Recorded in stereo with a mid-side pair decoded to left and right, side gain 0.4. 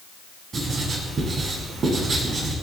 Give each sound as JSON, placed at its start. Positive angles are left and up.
{"t": 0.5, "sound": "writing", "azimuth_deg": -50, "distance_m": 9.0}